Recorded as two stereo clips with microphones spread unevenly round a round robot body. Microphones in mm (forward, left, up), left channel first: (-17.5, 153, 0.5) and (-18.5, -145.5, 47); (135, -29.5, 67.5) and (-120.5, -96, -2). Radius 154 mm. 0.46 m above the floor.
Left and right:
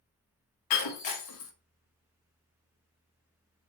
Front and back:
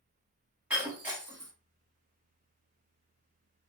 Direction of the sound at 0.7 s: 110° left.